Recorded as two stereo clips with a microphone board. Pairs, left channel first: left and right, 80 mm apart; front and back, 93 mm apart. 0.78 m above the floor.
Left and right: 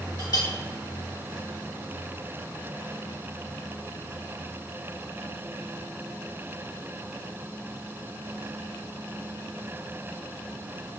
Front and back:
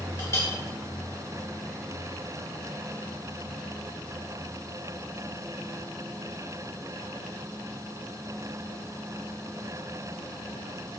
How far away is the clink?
About 1.5 m.